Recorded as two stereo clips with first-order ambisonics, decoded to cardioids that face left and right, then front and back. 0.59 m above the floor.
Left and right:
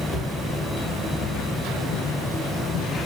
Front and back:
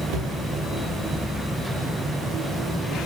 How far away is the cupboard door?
About 3 m.